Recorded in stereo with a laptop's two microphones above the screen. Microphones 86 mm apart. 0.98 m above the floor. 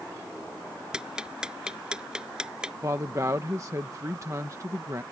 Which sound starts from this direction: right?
A woman speaking, at 2.8 s.